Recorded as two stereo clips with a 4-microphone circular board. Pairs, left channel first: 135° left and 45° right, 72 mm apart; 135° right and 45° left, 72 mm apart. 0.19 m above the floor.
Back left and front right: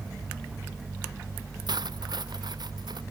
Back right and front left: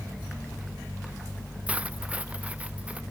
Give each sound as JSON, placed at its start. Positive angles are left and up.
{"t": 1.7, "sound": "cutlery clinking", "azimuth_deg": -30}